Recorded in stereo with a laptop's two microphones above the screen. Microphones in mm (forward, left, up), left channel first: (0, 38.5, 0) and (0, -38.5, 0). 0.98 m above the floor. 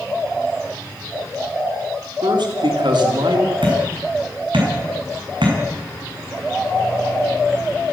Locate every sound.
2.2 s a man speaking: 70° right (ahead or behind), 3 m
3.6 s hammering: 90° right, 7.5 m